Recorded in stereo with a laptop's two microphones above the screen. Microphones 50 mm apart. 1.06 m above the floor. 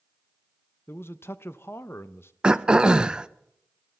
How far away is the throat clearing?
About 0.5 m.